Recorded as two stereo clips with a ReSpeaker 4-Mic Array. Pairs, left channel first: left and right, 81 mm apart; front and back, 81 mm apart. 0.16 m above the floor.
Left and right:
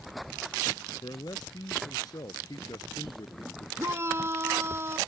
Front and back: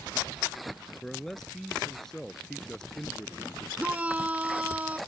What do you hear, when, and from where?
1.0 s a man speaking: 85° left
3.8 s a shout: 120° right